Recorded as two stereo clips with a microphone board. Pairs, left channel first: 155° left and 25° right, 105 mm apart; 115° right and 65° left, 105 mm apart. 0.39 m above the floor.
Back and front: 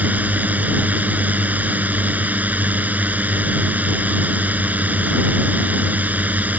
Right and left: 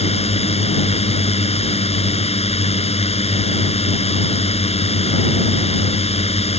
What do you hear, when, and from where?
0.0 s a drone: 95° right